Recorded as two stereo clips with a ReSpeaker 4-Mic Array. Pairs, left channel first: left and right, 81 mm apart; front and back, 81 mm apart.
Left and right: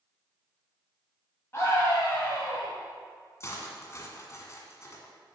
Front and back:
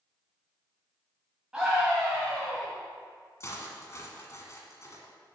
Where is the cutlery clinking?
45° left, 1.5 m.